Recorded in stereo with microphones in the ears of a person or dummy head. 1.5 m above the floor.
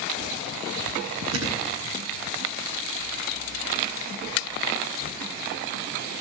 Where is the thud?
75° right (ahead or behind), 9 m.